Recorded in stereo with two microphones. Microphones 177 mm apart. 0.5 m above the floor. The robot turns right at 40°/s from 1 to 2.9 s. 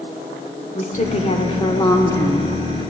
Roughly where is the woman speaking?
Left.